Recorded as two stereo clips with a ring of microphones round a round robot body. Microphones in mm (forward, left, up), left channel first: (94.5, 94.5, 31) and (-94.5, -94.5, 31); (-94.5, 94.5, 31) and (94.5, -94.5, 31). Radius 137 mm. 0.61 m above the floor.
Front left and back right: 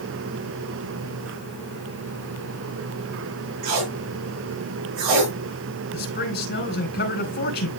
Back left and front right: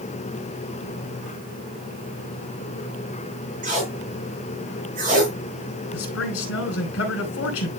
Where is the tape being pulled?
110° right, 5.5 m.